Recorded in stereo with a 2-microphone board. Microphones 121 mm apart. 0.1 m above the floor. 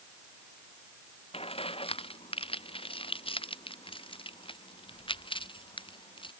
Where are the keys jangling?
50° left (ahead or behind); by 6.3 s 45° left (ahead or behind).